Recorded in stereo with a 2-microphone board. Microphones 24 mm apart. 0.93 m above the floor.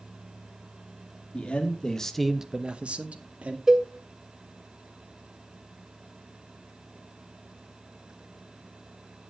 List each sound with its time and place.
1.3 s a man speaking: 55° left (ahead or behind), 1.5 m; by 3.6 s 70° right (ahead or behind), 2.0 m
3.7 s a cowbell: 25° right (ahead or behind), 1.4 m